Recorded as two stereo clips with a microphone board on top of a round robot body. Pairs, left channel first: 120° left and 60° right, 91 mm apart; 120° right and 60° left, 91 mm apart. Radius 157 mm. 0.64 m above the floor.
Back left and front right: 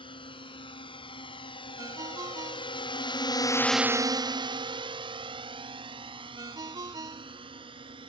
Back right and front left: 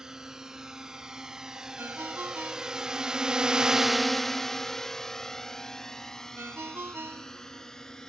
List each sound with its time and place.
0.0 s a drone: 145° left; by 8.1 s 35° right
1.8 s a ringtone: 10° right